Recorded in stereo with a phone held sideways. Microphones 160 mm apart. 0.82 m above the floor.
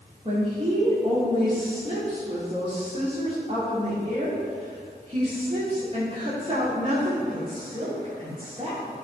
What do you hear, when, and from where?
0.2 s a woman speaking: 35° right (ahead or behind), 2 m